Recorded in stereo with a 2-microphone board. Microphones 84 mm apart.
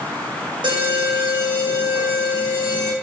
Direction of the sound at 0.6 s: 70° right (ahead or behind).